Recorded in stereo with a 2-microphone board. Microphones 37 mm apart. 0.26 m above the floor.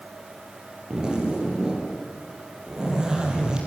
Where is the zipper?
20° right (ahead or behind), 5.5 m.